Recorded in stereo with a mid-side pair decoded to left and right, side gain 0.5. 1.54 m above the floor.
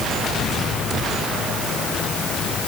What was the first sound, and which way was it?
Only background noise.